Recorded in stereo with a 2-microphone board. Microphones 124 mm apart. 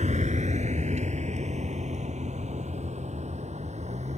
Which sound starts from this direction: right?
A vehicle, at 0.0 s.